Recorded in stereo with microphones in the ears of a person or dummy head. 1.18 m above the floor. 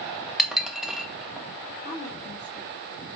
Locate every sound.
0.4 s dishes clattering: 5° left (ahead or behind), 0.8 m
1.9 s a woman speaking: 35° left (ahead or behind), 1.3 m